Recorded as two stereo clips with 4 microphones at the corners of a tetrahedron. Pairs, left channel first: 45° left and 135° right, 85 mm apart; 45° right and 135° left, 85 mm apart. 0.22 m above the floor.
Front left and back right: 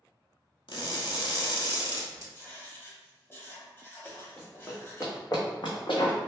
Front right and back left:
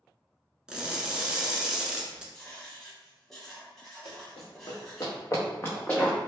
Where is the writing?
35° left, 1.0 m.